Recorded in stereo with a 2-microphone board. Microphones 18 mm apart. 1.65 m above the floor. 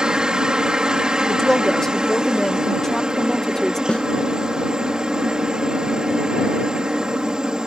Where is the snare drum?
65° left (ahead or behind).